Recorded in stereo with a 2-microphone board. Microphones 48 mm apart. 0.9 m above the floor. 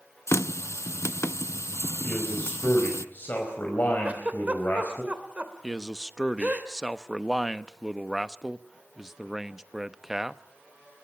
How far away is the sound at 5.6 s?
About 0.9 m.